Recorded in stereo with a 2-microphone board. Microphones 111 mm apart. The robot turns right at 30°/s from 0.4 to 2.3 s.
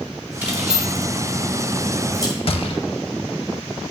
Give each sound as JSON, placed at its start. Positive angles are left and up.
{"t": 0.4, "sound": "keys jangling", "side_deg": -15, "distance_m": 1.6}
{"t": 2.5, "sound": "a gunshot", "side_deg": 55, "distance_m": 0.5}